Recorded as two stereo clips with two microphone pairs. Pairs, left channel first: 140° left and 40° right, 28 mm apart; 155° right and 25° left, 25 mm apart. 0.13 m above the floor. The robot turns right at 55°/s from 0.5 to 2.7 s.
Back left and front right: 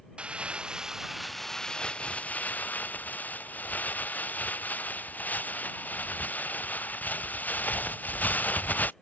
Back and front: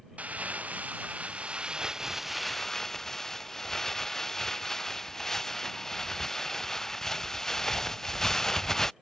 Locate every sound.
0.2 s crumpling: 10° left; by 8.9 s 135° left